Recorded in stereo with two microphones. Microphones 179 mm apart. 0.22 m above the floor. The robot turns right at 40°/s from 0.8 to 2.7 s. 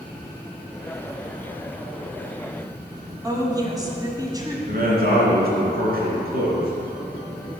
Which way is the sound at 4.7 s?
60° right (ahead or behind).